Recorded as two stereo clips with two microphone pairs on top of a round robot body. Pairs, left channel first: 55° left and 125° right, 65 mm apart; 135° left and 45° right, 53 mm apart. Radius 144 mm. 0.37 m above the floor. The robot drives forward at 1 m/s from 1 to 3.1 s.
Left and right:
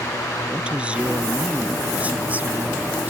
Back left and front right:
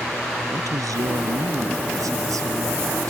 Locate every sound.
0.5 s a woman speaking: 50° right; by 3.1 s 60° right